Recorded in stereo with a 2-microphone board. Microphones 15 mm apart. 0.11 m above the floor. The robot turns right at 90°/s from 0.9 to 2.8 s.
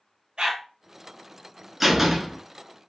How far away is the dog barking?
About 1.1 m.